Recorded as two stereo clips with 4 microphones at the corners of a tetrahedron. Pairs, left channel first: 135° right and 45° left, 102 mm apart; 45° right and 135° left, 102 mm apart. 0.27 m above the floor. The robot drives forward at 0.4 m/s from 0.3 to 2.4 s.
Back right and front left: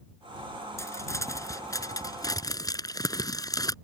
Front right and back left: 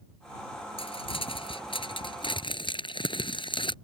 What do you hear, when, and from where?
0.8 s crumpling: 70° right; by 3.8 s 80° right